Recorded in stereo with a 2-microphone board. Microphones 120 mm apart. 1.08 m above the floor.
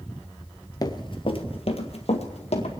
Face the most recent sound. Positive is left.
turn(degrees=60)  # may be behind; listen again after turning